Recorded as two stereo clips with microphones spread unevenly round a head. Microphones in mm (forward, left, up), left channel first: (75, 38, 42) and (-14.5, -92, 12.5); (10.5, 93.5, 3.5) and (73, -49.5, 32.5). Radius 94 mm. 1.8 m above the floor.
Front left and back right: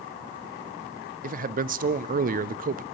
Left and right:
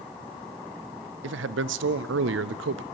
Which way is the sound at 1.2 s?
85° right.